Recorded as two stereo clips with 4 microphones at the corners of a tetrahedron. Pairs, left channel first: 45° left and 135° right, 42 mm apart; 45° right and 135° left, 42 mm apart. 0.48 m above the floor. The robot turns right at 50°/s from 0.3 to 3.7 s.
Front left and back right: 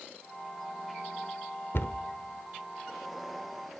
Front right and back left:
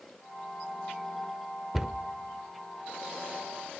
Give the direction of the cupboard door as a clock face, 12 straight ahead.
10 o'clock.